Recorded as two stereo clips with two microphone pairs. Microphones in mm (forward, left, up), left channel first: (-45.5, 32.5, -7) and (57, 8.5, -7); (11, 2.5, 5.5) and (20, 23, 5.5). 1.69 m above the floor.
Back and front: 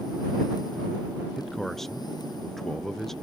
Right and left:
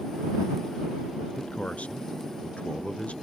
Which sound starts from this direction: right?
A man speaking, at 1.4 s.